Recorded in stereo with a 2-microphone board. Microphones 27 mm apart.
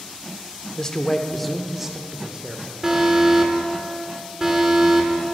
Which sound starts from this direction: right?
An alarm, at 2.8 s.